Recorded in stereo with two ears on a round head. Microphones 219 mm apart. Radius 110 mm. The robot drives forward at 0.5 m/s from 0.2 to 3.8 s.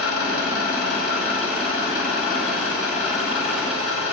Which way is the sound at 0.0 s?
45° left (ahead or behind).